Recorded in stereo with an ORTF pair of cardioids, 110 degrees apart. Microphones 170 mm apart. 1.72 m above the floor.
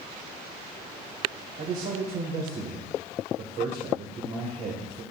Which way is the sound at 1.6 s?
45° right.